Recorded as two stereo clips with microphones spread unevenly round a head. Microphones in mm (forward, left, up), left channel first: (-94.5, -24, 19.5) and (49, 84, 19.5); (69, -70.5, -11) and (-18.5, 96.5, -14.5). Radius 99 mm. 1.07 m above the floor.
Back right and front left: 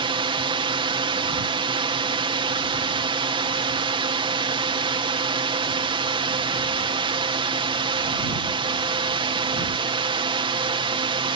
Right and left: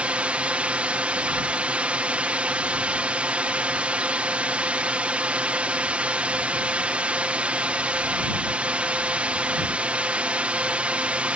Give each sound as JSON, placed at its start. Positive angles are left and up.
{"t": 0.0, "sound": "a drone", "azimuth_deg": 45}